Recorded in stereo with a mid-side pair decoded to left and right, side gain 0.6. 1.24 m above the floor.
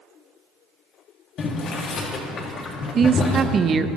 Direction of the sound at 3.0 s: 40° right.